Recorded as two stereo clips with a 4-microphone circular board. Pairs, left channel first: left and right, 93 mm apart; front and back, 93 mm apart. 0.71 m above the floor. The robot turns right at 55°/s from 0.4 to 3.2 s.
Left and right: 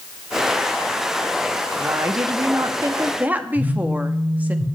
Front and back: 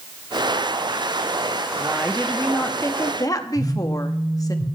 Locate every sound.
1.8 s a woman speaking: 105° right, 0.8 m; by 4.5 s 25° right, 0.8 m
3.5 s a phone buzzing: 130° right, 4 m